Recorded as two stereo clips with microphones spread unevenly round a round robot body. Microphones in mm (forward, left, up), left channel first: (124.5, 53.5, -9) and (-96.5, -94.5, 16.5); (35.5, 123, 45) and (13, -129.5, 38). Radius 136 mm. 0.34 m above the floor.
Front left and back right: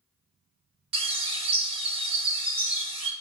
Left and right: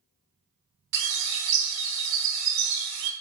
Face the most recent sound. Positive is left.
turn(degrees=-75)